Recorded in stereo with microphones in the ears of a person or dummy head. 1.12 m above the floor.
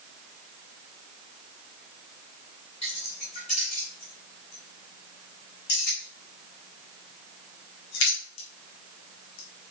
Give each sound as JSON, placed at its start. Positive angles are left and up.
{"t": 2.8, "sound": "keys jangling", "side_deg": 35, "distance_m": 4.0}